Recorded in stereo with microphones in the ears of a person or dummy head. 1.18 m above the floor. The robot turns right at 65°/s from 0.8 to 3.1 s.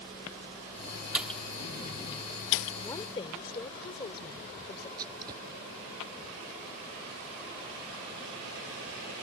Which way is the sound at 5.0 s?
25° right (ahead or behind).